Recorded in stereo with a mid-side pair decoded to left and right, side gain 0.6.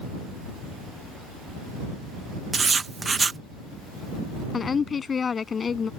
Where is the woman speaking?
30° left.